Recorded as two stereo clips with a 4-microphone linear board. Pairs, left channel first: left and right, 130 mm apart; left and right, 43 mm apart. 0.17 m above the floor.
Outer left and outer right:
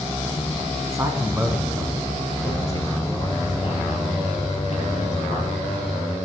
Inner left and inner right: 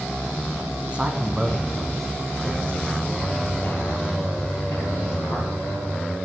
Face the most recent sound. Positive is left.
turn(degrees=65)  # may be behind; listen again after turning